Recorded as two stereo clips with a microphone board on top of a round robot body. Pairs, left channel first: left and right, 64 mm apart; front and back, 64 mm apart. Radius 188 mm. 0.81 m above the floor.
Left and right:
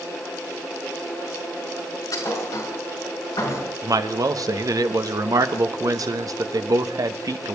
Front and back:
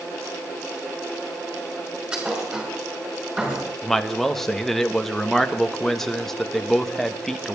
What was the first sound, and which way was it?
A thud, 110° left.